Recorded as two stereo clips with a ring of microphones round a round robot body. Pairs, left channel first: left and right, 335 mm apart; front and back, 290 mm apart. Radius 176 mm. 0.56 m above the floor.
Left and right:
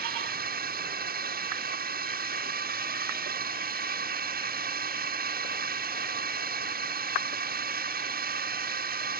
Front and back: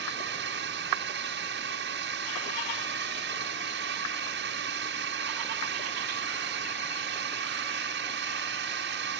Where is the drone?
140° right.